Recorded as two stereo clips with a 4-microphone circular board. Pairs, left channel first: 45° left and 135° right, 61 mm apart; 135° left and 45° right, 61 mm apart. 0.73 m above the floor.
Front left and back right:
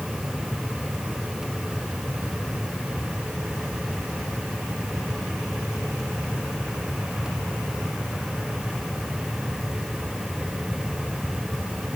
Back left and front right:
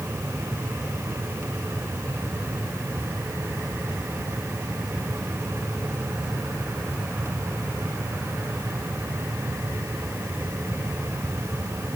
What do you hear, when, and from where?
Only background noise.